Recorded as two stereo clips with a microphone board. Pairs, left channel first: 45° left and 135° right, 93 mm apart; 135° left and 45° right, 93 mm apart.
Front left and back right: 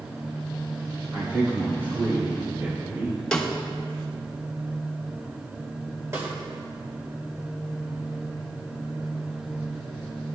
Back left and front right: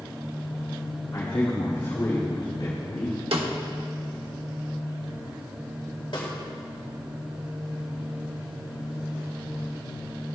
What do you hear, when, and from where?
1.1 s a man speaking: 175° right, 3 m; by 3.2 s 165° left, 2 m
3.3 s a snare drum: 35° right, 1.1 m
6.1 s a snare drum: 165° left, 2.5 m